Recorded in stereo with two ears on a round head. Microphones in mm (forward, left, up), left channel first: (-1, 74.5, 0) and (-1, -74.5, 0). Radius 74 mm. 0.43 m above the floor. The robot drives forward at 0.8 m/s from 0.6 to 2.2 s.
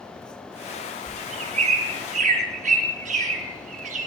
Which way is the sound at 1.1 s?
40° right (ahead or behind).